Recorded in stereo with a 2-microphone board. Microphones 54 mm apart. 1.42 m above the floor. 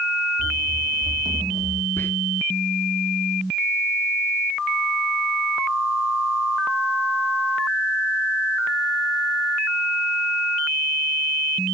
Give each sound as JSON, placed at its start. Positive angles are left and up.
{"t": 0.4, "sound": "running footsteps", "side_deg": 20, "distance_m": 2.5}
{"t": 2.0, "sound": "whispering", "side_deg": 45, "distance_m": 1.1}